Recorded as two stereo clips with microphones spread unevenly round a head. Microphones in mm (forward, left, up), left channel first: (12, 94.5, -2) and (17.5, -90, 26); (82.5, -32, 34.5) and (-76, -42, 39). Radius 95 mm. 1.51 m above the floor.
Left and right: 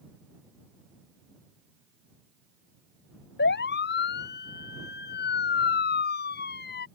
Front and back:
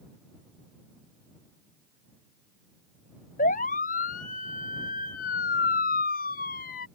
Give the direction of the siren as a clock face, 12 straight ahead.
10 o'clock.